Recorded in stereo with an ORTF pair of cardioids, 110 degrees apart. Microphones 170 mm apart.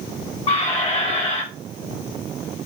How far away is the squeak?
About 1.0 m.